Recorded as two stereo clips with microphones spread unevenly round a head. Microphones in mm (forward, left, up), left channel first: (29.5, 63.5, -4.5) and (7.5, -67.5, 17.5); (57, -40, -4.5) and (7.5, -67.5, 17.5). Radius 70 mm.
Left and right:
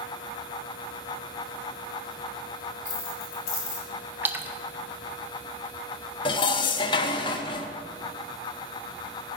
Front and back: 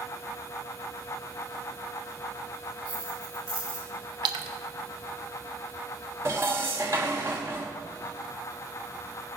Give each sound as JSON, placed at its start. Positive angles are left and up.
{"t": 2.9, "sound": "keys jangling", "azimuth_deg": 125, "distance_m": 4.0}
{"t": 4.2, "sound": "a splash", "azimuth_deg": 180, "distance_m": 0.6}
{"t": 6.2, "sound": "dishes clattering", "azimuth_deg": 140, "distance_m": 0.6}